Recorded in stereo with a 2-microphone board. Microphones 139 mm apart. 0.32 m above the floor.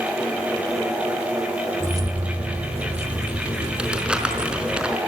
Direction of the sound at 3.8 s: 5° right (ahead or behind).